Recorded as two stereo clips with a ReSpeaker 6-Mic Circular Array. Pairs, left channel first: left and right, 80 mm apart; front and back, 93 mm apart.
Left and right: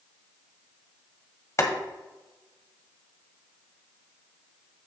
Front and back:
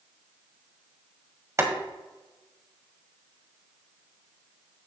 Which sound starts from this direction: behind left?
Boiling, at 1.6 s.